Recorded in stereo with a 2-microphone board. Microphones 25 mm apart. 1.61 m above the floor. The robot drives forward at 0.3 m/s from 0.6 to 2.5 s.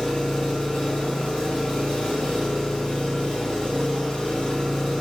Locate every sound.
0.0 s an engine running: 30° left (ahead or behind), 1.3 m